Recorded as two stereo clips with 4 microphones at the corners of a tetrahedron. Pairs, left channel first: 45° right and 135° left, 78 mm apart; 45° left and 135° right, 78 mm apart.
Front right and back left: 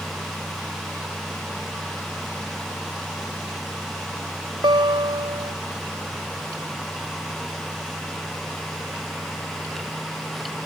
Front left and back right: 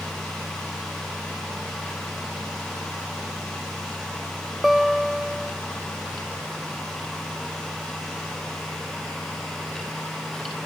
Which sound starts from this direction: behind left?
A guitar, at 4.6 s.